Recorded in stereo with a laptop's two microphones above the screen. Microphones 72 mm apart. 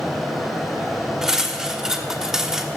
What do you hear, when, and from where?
0.0 s a fan: centre (ahead or behind), 1.9 m
1.2 s cutlery clinking: 10° right (ahead or behind), 1.1 m